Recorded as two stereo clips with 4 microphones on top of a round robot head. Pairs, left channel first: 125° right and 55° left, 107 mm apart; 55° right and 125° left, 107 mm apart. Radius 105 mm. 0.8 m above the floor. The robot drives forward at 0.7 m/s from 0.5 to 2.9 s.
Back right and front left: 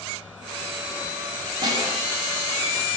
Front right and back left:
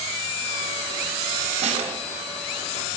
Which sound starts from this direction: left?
A snare drum, at 1.6 s.